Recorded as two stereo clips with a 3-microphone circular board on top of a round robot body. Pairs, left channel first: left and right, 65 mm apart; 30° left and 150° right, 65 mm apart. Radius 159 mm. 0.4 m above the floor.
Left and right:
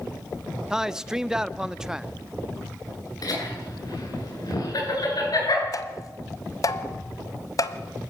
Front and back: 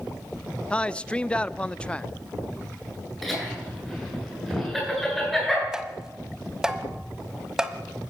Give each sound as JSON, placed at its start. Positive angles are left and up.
{"t": 0.7, "sound": "a man speaking", "azimuth_deg": -25, "distance_m": 0.8}
{"t": 3.2, "sound": "laughter", "azimuth_deg": 115, "distance_m": 9.5}
{"t": 5.7, "sound": "tapping", "azimuth_deg": 125, "distance_m": 1.3}